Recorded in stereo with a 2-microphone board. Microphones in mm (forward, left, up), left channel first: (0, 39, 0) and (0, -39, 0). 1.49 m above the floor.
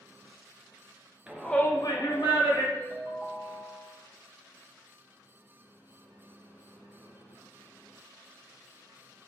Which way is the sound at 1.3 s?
10° right (ahead or behind).